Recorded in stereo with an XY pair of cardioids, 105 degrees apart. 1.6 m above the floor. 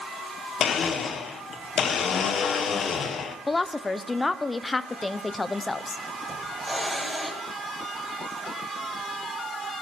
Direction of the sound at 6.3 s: 10° right.